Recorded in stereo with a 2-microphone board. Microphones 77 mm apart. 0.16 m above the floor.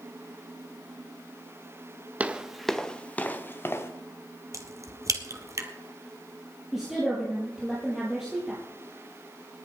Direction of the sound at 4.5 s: 45° right (ahead or behind).